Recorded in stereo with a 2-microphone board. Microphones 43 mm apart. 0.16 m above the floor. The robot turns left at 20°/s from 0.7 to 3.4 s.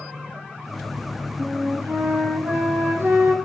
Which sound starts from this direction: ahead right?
A flute, at 1.4 s.